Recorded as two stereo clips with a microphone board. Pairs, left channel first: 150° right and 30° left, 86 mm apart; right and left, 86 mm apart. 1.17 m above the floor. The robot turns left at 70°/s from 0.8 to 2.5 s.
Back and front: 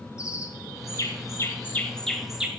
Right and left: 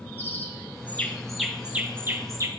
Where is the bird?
140° right, 1.1 m; by 2.5 s 100° left, 1.1 m.